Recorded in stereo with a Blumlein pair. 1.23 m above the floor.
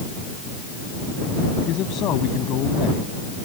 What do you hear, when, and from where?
1.6 s a man speaking: 35° left